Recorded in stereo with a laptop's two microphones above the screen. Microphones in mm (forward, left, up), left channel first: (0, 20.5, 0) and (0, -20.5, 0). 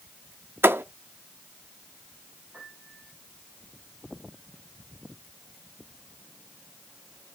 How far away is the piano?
About 10 m.